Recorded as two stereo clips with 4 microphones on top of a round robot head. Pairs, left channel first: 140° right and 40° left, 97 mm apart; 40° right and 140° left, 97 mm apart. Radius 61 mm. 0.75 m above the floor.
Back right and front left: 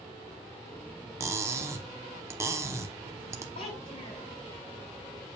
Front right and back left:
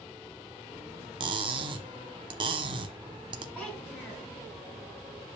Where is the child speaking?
125° right, 6 m.